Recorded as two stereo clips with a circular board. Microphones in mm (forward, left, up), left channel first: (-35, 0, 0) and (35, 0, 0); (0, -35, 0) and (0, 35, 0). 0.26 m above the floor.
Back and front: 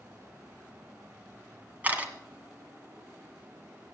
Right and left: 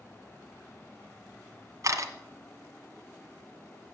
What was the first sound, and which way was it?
A camera shutter, 65° left.